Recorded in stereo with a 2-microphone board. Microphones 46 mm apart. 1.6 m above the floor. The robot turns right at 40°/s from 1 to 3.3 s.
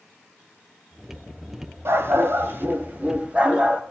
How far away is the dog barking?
About 2.5 m.